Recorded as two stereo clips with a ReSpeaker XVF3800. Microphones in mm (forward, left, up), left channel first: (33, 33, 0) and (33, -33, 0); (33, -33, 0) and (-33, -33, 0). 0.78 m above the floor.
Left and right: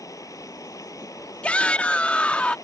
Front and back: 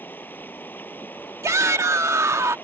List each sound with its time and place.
0.0 s running water: 60° left
1.4 s a shout: 155° left